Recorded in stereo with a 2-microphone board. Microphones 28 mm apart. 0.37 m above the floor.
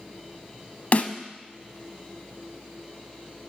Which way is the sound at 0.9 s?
55° left (ahead or behind).